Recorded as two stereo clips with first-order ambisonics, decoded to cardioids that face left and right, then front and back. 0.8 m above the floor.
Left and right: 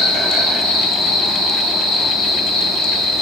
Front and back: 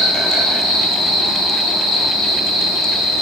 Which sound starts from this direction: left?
An insect, at 0.0 s.